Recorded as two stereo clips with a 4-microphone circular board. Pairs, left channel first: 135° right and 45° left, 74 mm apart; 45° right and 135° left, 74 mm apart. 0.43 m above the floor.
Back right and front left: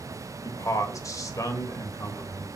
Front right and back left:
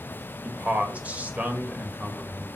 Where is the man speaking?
160° right, 1.8 m.